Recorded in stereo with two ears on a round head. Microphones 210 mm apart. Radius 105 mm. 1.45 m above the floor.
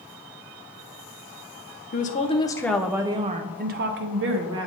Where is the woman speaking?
40° left (ahead or behind), 0.8 m; by 4.7 s 60° right (ahead or behind), 1.2 m.